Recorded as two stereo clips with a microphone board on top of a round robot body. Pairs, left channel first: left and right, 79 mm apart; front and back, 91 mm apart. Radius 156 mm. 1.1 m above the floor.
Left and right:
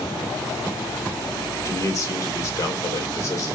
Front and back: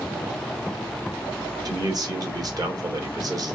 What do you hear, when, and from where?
1.6 s a man speaking: 140° left, 1.9 m